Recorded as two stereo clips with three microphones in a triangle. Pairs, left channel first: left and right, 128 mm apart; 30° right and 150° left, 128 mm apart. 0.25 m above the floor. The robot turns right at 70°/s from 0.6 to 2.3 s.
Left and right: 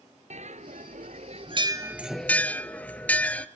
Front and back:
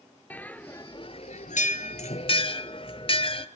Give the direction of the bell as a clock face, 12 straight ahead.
4 o'clock.